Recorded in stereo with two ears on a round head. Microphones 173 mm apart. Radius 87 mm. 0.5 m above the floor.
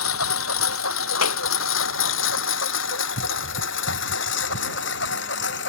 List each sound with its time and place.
0.0 s a lawn mower: 80° left; by 5.7 s 65° left (ahead or behind)
1.2 s a clap: 85° left